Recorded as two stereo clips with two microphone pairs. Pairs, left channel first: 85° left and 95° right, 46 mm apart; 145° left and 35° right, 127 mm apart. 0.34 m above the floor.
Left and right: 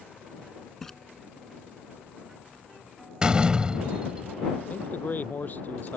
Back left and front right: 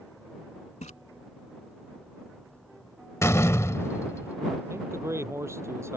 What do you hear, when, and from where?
0.8 s a splash: 160° left
3.2 s a door slam: 160° right
4.7 s a man speaking: 35° left